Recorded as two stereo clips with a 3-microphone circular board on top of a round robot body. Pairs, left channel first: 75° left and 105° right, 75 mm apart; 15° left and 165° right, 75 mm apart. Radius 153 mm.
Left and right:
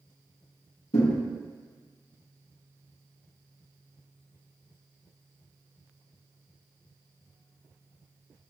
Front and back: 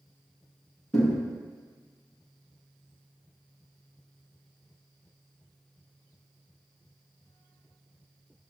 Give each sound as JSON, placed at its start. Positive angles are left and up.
{"t": 0.9, "sound": "a thud", "azimuth_deg": 95, "distance_m": 1.5}